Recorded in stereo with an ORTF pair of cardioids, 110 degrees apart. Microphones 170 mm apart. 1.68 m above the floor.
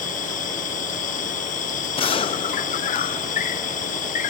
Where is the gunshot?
30° left.